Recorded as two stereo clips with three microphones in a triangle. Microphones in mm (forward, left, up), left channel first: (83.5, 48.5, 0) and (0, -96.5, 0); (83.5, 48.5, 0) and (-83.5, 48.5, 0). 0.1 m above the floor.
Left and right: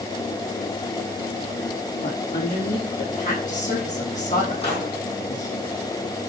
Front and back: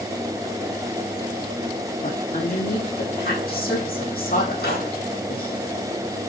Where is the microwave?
5° left, 5.5 m.